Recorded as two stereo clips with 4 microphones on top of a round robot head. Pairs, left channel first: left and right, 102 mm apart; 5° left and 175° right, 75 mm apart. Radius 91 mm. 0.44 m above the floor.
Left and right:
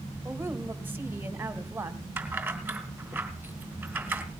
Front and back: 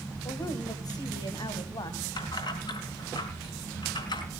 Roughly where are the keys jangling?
Ahead.